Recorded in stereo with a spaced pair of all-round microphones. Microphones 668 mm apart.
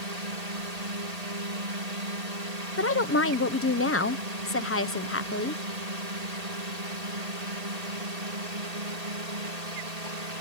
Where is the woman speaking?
20° left (ahead or behind).